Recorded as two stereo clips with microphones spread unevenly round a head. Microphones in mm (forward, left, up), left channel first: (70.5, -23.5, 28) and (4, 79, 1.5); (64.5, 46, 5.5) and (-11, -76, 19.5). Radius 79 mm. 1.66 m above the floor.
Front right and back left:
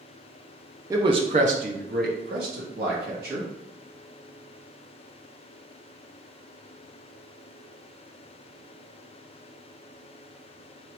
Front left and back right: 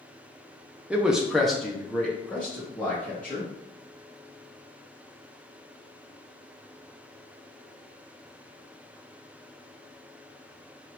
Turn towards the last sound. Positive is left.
turn(degrees=140)